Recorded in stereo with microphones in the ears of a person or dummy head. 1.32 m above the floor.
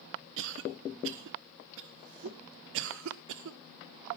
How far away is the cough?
About 0.6 m.